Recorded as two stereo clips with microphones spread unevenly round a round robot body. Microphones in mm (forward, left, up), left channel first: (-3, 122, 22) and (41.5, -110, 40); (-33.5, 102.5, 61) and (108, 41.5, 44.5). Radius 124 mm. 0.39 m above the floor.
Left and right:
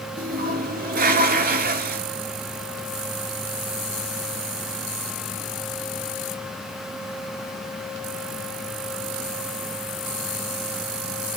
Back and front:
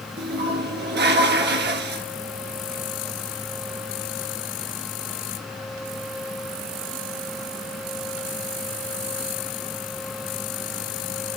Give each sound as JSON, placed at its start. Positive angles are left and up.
{"t": 0.2, "sound": "a toilet flushing", "azimuth_deg": -25, "distance_m": 1.7}